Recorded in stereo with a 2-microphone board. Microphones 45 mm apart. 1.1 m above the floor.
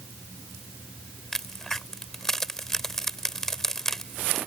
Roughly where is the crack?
Centre.